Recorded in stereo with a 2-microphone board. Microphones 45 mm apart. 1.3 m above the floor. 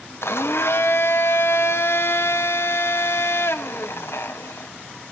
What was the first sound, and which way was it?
A blender, 65° left (ahead or behind).